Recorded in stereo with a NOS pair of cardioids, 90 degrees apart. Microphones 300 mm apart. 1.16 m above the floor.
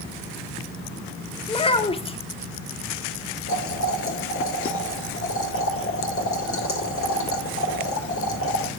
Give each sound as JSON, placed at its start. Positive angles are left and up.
{"t": 1.5, "sound": "a child speaking", "azimuth_deg": 20, "distance_m": 1.4}
{"t": 3.5, "sound": "boiling", "azimuth_deg": 45, "distance_m": 3.5}